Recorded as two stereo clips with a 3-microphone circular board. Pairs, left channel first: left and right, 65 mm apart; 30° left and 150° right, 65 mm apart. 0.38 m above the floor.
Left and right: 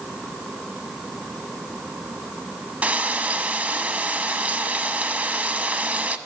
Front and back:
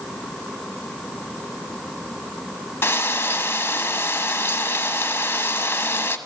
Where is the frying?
25° right, 0.5 m.